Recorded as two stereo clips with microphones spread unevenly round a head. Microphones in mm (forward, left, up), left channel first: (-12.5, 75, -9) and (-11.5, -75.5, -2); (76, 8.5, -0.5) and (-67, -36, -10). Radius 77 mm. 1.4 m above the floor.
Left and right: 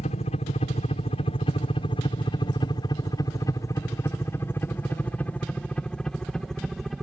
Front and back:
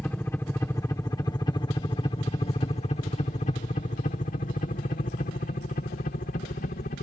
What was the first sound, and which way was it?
A helicopter, 95° left.